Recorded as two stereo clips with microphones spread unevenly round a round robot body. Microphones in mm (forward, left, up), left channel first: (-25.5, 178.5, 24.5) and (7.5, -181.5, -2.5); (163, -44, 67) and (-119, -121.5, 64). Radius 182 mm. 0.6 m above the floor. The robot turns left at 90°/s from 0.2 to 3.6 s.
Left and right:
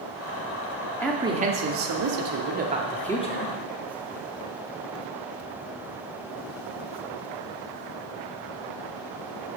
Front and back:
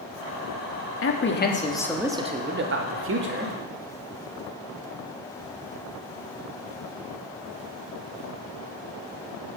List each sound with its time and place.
1.0 s a man speaking: 10° left, 1.5 m; by 3.5 s 140° left, 1.5 m